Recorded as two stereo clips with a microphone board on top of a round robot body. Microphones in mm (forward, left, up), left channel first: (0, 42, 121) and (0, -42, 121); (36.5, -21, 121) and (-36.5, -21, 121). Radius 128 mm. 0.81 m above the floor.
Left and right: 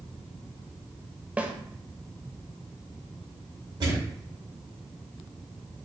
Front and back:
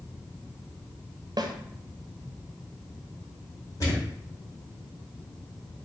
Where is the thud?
45° right, 2.0 m.